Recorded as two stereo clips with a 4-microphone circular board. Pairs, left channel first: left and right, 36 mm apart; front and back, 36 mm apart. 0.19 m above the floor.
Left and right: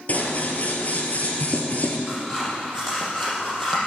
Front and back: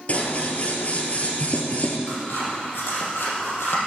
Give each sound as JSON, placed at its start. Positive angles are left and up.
{"t": 0.1, "sound": "scissors", "azimuth_deg": 45, "distance_m": 1.8}
{"t": 2.1, "sound": "scissors", "azimuth_deg": 20, "distance_m": 5.0}